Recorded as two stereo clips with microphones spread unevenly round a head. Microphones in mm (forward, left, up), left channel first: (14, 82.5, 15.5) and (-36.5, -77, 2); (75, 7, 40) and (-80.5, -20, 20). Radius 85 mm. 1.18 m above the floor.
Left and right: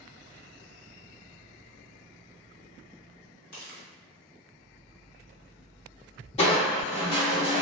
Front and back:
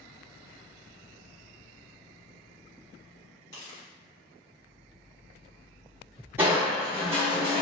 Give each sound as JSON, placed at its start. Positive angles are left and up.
{"t": 3.5, "sound": "footsteps", "azimuth_deg": 70, "distance_m": 2.0}
{"t": 6.4, "sound": "crushing", "azimuth_deg": 110, "distance_m": 0.9}